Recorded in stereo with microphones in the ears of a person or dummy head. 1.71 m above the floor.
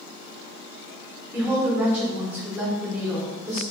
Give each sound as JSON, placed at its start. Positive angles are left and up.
{"t": 1.3, "sound": "a woman speaking", "side_deg": -10, "distance_m": 1.2}